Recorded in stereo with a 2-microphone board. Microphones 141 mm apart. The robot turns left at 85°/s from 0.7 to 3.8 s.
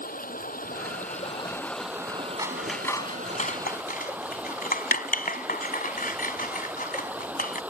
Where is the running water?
95° left; by 7.7 s 170° right.